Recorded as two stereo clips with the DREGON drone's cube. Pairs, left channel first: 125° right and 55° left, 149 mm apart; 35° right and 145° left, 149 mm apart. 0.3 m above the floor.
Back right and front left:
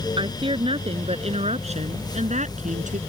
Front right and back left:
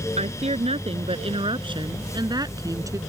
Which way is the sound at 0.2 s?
110° left.